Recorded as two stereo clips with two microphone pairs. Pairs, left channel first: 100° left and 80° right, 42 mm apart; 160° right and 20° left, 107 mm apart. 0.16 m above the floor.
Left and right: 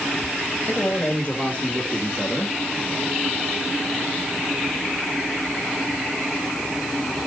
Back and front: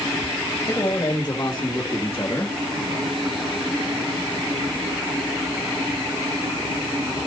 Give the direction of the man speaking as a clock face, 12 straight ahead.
7 o'clock.